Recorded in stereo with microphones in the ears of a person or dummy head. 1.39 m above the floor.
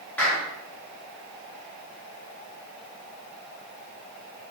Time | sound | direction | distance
0.2 | a clap | 5° left (ahead or behind) | 3 m